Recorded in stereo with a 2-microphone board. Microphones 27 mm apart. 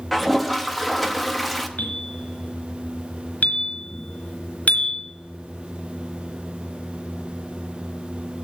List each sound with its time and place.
0.1 s a toilet flushing: centre (ahead or behind), 0.8 m
1.8 s a bell: 75° left (ahead or behind), 3 m